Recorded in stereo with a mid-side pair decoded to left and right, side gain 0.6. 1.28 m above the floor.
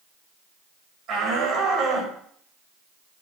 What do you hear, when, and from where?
1.1 s a shout: 60° right, 8 m; by 2.1 s 50° right, 8 m